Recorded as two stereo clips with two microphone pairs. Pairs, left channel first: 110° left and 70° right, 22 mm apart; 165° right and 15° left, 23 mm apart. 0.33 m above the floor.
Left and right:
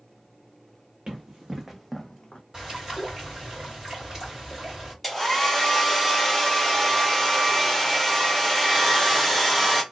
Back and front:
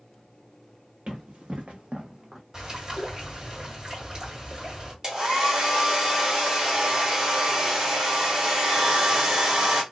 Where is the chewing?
I don't hear chewing.